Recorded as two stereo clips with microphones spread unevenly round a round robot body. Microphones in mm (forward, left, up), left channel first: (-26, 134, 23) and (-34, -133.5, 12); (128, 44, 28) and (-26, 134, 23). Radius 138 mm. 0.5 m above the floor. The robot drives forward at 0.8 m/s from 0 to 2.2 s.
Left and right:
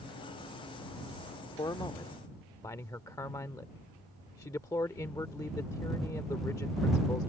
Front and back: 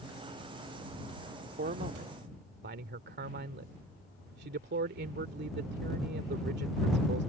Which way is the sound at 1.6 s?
160° left.